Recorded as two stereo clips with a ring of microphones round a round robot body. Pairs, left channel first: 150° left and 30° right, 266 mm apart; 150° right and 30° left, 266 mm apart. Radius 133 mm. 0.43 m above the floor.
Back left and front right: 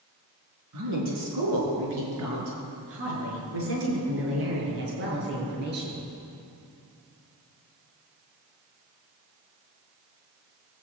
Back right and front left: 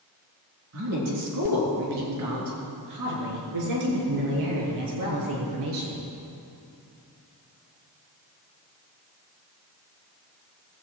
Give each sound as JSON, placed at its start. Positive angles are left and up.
{"t": 0.7, "sound": "a woman speaking", "azimuth_deg": -5, "distance_m": 4.5}